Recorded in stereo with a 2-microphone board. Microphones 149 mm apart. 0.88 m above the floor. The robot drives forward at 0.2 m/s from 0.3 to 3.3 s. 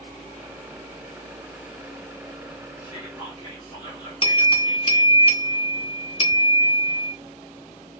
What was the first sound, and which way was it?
Whispering, 30° left (ahead or behind).